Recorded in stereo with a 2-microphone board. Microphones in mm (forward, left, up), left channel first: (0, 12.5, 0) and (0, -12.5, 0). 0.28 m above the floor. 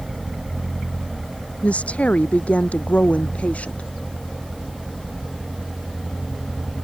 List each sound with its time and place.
1.6 s a woman speaking: 65° left (ahead or behind); by 3.9 s 70° left (ahead or behind)